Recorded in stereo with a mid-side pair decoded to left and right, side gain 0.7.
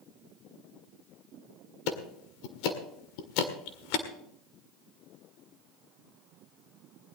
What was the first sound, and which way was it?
Ticking, 70° left.